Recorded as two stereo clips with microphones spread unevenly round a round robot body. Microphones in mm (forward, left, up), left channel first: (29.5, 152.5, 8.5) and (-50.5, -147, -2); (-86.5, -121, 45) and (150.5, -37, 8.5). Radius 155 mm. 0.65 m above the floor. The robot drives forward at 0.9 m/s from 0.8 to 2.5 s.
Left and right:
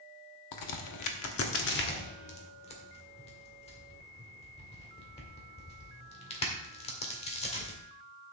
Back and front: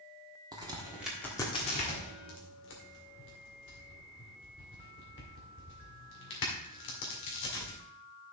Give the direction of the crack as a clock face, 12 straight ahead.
9 o'clock.